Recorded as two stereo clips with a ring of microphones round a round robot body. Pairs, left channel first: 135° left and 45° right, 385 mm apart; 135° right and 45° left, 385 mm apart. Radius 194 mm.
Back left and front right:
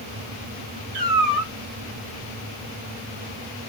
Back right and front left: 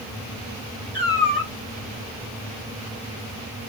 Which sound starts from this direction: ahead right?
A cat meowing, at 0.9 s.